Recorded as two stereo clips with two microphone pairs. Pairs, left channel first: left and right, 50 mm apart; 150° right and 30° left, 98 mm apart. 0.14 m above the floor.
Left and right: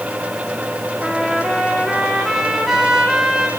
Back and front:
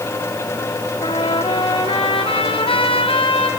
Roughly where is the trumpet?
Behind.